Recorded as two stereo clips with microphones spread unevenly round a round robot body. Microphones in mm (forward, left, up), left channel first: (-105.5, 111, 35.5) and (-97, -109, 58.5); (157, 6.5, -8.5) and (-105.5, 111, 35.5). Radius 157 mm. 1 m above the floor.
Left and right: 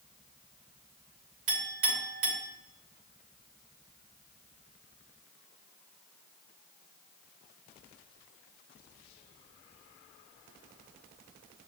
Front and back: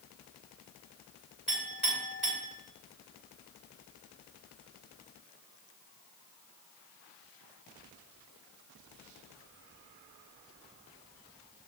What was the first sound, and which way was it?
A clink, 115° right.